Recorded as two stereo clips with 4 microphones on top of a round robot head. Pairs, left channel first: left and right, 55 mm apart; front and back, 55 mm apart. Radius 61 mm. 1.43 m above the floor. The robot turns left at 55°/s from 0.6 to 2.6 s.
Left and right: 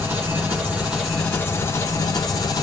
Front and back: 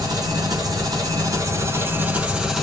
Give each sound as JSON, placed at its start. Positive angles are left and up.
{"t": 0.0, "sound": "an engine running", "azimuth_deg": -155, "distance_m": 1.5}